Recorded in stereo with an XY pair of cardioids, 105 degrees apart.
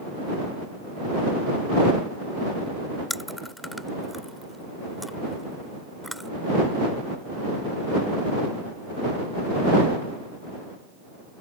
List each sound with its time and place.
3.1 s chewing: 5° left